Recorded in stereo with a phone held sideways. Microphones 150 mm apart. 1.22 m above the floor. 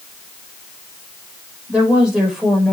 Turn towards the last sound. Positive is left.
turn(degrees=0)  # may be behind; listen again after turning